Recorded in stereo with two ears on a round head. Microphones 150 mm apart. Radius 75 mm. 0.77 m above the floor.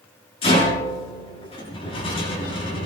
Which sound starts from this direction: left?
A rattle, at 0.4 s.